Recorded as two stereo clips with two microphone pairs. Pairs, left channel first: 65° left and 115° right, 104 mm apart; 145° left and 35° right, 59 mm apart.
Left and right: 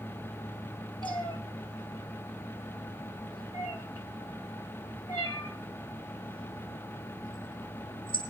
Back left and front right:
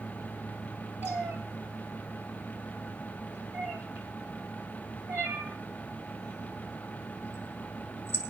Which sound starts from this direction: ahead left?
A cat meowing, at 1.0 s.